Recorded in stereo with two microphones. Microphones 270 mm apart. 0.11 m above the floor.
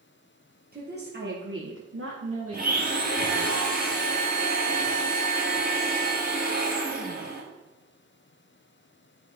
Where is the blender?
30° right (ahead or behind), 2.5 m.